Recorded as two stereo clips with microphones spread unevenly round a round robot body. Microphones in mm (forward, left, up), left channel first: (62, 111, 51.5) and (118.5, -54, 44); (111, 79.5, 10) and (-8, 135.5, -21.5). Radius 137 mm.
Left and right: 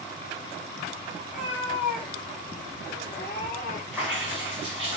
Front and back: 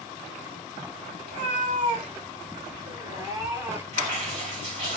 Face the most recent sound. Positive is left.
turn(degrees=-160)